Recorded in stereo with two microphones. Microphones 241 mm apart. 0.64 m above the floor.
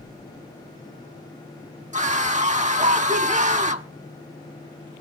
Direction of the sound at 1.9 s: 30° right (ahead or behind).